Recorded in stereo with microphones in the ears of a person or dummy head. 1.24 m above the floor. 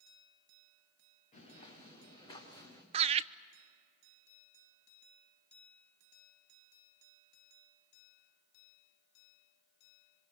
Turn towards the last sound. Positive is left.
turn(degrees=-25)  # may be behind; listen again after turning